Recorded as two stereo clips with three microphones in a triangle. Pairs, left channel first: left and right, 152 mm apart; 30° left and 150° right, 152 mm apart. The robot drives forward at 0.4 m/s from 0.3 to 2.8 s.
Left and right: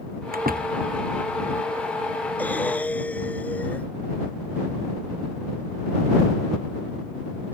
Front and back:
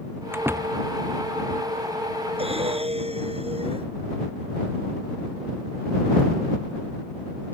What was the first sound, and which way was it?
A door slam, 75° right.